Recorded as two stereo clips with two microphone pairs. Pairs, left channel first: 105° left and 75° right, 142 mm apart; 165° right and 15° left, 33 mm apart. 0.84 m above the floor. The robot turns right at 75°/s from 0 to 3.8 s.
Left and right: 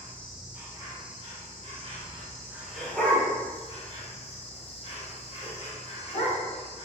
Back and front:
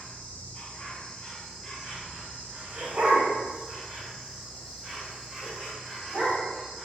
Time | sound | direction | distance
0.0 | an insect | 170° left | 1.0 m
2.8 | a dog barking | straight ahead | 1.4 m